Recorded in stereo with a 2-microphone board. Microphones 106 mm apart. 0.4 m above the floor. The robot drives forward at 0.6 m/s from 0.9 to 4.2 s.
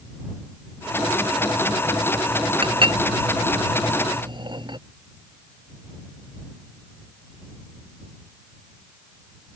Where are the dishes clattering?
55° right (ahead or behind); by 4.8 s 50° right (ahead or behind).